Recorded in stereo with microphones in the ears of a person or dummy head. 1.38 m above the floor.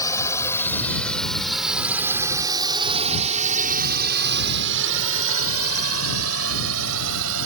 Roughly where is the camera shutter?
No camera shutter in this recording.